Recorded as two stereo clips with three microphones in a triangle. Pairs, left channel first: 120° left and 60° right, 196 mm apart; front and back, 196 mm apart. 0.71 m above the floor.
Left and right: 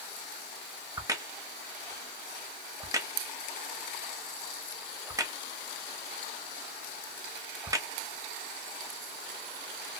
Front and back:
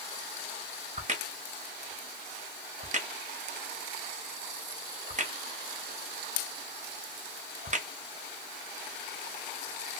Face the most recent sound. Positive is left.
turn(degrees=-135)